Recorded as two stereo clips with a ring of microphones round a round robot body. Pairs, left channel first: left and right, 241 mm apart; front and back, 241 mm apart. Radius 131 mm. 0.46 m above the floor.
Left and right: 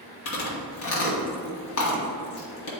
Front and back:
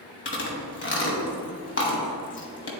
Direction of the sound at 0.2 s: 45° left.